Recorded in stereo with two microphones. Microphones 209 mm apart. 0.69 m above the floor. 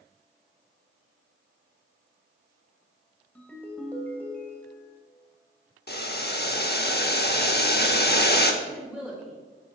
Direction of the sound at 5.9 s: 50° left (ahead or behind).